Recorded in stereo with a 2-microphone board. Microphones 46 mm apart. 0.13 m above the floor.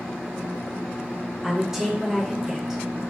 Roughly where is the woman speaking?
Centre.